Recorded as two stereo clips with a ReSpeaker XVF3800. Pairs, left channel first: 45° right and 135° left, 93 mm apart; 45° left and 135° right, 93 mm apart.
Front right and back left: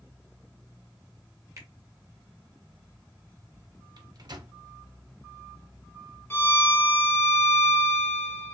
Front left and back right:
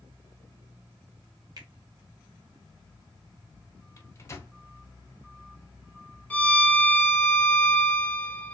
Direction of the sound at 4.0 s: 100° left.